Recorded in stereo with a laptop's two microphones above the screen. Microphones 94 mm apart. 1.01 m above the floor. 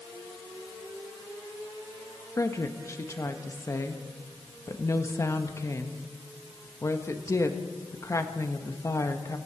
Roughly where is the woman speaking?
Left.